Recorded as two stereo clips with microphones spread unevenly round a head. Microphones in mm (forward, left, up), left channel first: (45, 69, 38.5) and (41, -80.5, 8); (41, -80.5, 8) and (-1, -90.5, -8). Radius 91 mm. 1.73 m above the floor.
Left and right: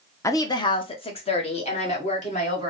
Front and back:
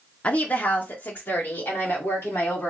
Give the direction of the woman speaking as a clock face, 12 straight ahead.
11 o'clock.